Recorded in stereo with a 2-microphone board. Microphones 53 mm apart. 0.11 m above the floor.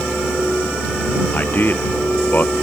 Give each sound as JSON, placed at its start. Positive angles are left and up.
{"t": 1.3, "sound": "a man speaking", "side_deg": 40}